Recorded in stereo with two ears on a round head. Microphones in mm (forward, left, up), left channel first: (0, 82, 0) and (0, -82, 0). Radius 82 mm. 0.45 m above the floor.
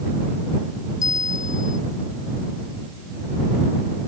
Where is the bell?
20° left (ahead or behind).